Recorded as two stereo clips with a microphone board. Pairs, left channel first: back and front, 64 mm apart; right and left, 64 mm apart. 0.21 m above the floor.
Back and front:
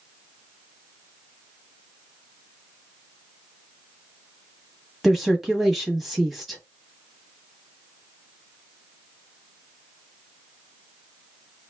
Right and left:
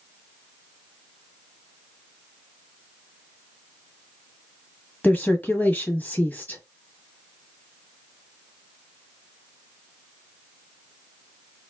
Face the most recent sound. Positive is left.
turn(degrees=-85)